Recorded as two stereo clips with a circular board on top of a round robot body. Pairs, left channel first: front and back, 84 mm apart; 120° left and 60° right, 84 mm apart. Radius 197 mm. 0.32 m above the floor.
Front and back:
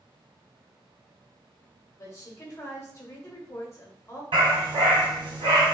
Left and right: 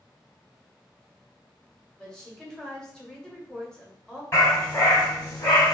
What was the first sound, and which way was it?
A woman speaking, 40° left.